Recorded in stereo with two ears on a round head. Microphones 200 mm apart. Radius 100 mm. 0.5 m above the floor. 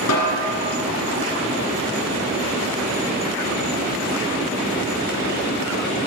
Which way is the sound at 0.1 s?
80° left.